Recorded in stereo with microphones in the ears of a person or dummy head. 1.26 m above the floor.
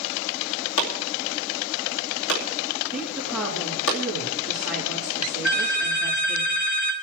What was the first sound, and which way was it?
Chopping, 65° left (ahead or behind).